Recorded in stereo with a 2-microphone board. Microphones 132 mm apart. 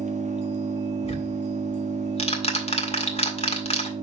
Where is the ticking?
50° left (ahead or behind), 1.7 m.